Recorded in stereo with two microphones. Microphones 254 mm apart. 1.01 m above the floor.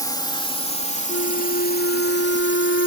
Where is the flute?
55° left (ahead or behind).